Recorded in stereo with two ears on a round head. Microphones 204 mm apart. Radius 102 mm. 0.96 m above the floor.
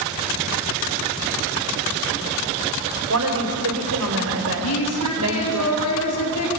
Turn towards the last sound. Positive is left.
turn(degrees=80)